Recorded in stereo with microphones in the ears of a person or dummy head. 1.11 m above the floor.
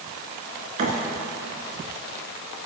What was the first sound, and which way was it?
A thud, 45° right (ahead or behind).